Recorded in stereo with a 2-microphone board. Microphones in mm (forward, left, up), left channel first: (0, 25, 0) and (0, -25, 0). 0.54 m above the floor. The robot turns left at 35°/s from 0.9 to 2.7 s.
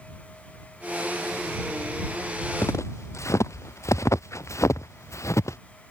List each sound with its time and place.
2.6 s footsteps: 75° left (ahead or behind); by 5.6 s 80° left